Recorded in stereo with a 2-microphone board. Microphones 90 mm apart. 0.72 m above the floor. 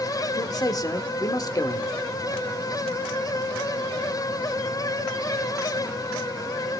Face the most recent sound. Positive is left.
turn(degrees=45)  # may be behind; listen again after turning